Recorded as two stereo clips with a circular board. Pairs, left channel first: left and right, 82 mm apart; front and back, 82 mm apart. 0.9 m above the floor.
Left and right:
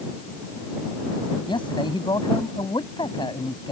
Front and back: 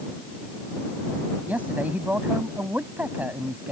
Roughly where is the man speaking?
Left.